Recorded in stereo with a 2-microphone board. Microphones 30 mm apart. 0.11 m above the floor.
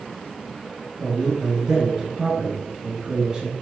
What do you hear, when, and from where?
1.0 s a man speaking: 30° right (ahead or behind), 1.9 m